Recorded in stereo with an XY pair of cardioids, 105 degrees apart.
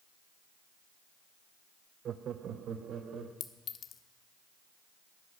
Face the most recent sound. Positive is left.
turn(degrees=60)